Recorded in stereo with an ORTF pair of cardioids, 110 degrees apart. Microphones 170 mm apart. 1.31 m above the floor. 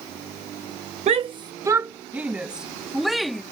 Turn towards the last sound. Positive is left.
turn(degrees=0)